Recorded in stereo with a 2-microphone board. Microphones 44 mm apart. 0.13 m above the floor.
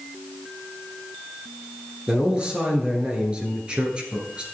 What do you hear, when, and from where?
2.1 s a man speaking: 20° right (ahead or behind), 1.8 m